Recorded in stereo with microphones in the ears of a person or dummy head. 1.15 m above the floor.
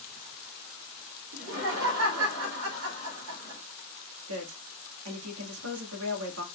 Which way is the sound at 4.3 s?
75° right (ahead or behind).